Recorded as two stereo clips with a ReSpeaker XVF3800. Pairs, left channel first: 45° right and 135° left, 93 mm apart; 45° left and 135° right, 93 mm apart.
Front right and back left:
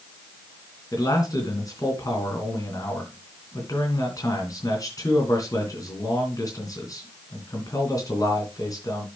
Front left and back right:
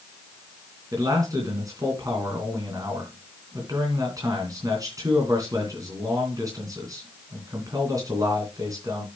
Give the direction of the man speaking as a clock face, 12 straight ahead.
3 o'clock.